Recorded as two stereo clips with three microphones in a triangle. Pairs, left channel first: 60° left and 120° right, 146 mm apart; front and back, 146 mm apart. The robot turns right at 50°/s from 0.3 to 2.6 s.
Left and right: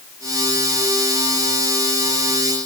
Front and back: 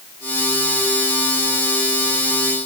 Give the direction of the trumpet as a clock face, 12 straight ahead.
No trumpet in this recording.